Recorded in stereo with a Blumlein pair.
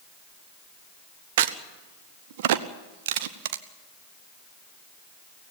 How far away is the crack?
About 1.0 m.